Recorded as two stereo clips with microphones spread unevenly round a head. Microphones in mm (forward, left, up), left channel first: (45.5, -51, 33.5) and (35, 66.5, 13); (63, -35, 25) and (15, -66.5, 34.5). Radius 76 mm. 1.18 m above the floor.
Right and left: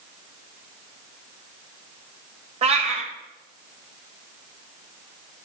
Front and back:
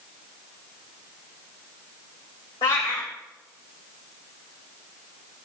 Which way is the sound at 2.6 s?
60° left.